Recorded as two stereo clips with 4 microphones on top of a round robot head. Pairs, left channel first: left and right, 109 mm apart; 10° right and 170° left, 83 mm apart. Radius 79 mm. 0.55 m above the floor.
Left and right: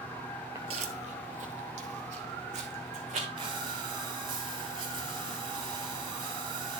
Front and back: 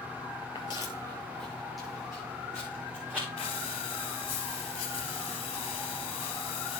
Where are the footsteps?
30° right, 0.6 m; by 3.3 s 105° right, 3 m.